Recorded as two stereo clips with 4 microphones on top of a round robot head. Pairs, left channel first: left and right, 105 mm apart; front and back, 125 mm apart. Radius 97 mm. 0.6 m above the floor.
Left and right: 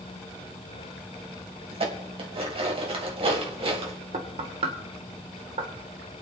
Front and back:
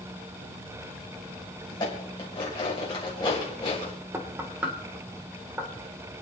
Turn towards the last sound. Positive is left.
turn(degrees=-105)